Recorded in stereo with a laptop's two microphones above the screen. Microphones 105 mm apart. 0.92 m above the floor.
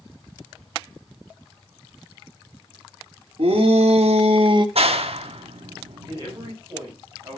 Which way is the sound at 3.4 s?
65° right (ahead or behind).